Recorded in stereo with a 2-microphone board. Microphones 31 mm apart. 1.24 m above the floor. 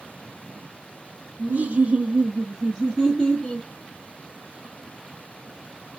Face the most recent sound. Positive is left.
turn(degrees=15)  # may be behind; listen again after turning